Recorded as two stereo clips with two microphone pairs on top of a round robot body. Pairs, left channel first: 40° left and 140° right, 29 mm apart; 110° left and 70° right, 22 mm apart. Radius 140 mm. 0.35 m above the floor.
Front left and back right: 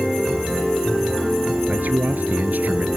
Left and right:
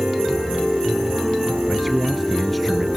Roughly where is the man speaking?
Behind.